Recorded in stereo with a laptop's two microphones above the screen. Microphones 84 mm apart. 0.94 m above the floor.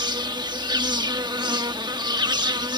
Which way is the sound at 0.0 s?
65° right (ahead or behind).